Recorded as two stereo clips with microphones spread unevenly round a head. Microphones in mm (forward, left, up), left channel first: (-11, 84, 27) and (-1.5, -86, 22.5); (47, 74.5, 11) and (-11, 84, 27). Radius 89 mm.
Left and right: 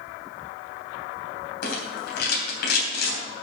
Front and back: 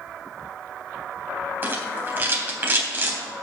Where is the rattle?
120° left, 3 m.